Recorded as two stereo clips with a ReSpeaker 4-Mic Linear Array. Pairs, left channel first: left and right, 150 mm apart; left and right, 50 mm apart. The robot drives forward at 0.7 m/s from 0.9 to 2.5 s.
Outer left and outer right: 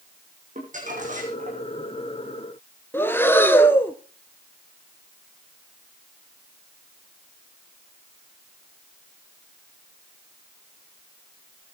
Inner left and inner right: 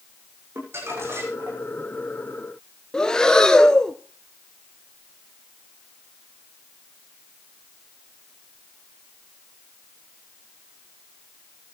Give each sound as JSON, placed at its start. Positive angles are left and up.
{"t": 0.6, "sound": "crumpling", "side_deg": -55, "distance_m": 6.5}
{"t": 2.9, "sound": "breathing", "side_deg": 15, "distance_m": 1.2}